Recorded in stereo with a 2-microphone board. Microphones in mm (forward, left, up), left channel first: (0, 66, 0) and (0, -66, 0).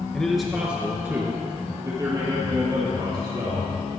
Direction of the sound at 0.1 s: 5° left (ahead or behind).